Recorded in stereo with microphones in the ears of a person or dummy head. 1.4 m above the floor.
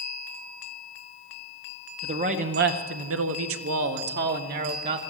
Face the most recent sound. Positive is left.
turn(degrees=-45)  # may be behind; listen again after turning